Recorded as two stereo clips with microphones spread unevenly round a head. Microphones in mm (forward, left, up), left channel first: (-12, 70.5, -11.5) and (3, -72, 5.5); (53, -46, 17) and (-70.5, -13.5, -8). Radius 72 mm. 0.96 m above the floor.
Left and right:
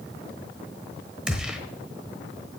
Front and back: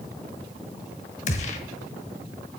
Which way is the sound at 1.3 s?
5° right.